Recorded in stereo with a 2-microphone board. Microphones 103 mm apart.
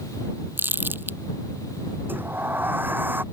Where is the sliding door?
20° right (ahead or behind).